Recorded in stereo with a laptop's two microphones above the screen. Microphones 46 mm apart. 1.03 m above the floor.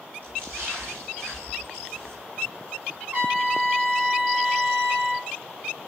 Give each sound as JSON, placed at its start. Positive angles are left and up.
{"t": 0.2, "sound": "a splash", "side_deg": -45, "distance_m": 8.5}
{"t": 3.1, "sound": "a trumpet", "side_deg": -45, "distance_m": 3.0}